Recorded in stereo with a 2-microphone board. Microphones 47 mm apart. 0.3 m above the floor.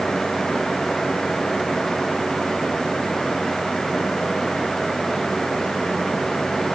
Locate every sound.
Only background noise.